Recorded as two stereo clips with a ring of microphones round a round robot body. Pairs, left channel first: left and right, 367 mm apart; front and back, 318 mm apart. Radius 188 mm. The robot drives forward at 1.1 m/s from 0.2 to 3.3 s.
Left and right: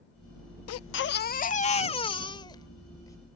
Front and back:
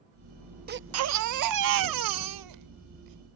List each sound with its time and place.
0.7 s a baby crying: 125° left; by 3.2 s 170° left